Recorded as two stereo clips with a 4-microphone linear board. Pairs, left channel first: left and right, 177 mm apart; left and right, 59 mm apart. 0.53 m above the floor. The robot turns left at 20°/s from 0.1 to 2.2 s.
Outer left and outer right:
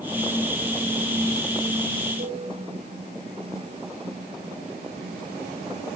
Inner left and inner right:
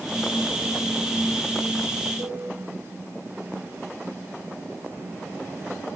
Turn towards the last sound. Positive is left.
turn(degrees=-65)  # may be behind; listen again after turning